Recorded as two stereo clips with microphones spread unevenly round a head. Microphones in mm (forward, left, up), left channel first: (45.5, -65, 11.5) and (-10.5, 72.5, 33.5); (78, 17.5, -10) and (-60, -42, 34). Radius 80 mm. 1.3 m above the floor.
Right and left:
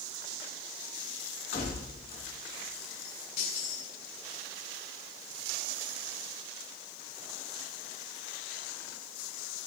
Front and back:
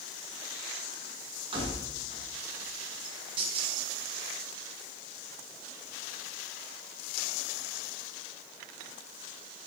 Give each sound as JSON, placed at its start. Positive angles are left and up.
{"t": 1.5, "sound": "keys jangling", "azimuth_deg": -100, "distance_m": 9.5}